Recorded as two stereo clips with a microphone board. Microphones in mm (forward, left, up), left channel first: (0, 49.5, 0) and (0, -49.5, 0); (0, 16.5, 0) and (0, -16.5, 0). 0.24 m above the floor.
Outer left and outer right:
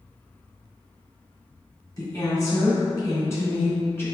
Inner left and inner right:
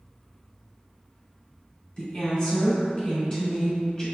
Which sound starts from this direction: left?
A woman speaking, at 2.0 s.